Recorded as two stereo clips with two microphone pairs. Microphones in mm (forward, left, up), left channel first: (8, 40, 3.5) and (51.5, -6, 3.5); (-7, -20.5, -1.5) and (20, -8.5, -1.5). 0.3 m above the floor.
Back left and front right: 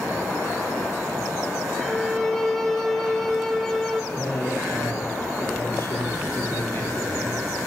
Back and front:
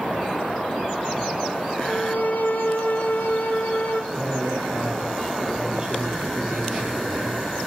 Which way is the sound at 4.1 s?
85° left.